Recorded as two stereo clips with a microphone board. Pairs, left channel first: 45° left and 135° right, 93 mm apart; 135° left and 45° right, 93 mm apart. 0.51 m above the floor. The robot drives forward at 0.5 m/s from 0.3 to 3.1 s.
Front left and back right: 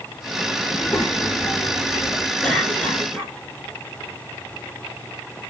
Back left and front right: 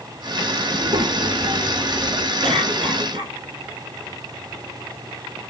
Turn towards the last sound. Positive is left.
turn(degrees=-35)